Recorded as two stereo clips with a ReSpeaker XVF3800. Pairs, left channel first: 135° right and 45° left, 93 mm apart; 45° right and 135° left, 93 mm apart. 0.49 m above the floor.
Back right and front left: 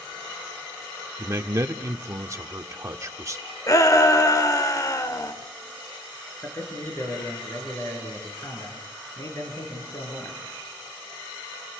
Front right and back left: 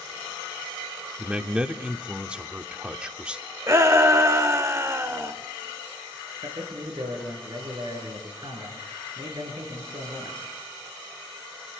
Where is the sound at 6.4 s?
165° left, 7 m.